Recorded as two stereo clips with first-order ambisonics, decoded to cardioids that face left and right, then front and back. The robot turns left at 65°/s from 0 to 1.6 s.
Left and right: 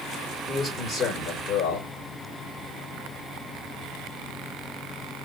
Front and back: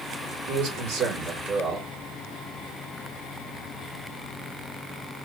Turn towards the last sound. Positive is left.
turn(degrees=115)